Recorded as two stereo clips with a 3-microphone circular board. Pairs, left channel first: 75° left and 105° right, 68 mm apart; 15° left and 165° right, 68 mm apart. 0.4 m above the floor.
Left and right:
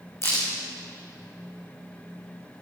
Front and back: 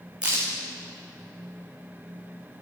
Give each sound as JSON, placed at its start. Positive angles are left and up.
{"t": 0.2, "sound": "a crack", "azimuth_deg": 120, "distance_m": 5.0}